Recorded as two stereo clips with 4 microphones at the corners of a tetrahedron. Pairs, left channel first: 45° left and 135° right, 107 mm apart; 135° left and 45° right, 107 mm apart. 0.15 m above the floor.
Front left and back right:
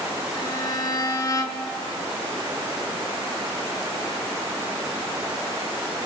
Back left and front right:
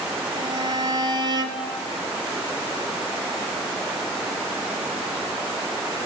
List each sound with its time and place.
0.3 s a violin: 5° right, 0.7 m